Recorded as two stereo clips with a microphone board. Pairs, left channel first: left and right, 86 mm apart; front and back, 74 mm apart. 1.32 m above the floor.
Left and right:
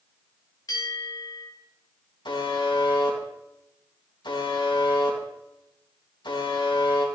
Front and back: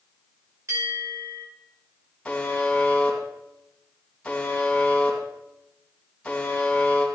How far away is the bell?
About 5.5 m.